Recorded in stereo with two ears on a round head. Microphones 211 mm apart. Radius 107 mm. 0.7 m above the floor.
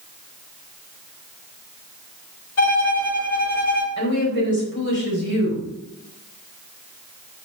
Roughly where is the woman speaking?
Left.